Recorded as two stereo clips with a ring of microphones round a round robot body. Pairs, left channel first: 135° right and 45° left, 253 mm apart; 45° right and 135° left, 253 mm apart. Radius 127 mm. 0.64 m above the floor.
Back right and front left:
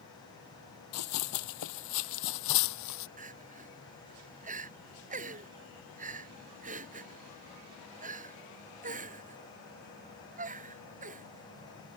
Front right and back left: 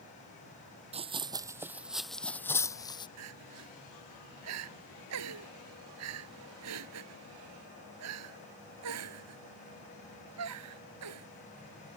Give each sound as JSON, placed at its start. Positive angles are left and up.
{"t": 0.9, "sound": "running footsteps", "azimuth_deg": -160}
{"t": 3.2, "sound": "crying", "azimuth_deg": 105}